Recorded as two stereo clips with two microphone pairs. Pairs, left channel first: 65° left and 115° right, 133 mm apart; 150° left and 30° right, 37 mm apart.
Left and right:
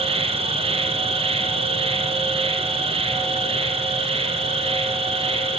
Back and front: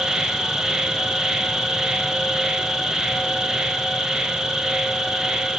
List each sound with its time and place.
0.0 s an insect: 95° right, 0.7 m